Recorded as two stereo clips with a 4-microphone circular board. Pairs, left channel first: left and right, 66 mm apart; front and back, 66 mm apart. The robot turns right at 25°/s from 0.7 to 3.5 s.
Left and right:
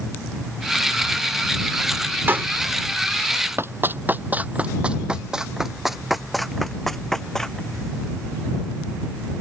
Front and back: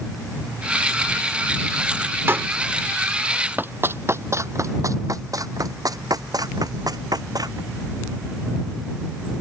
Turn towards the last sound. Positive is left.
turn(degrees=175)